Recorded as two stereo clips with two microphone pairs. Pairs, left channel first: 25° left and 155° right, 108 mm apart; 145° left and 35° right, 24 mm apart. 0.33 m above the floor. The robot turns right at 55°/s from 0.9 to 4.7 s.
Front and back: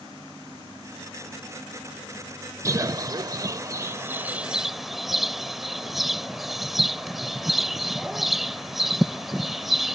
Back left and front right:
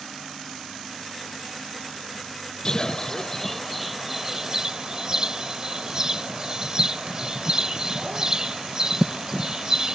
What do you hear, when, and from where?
2.6 s a bird: 175° left; by 9.9 s 75° right